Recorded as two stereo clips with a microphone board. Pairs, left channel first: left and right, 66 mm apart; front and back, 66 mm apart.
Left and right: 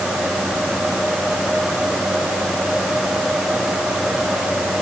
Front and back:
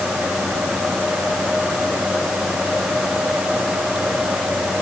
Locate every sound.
Only background noise.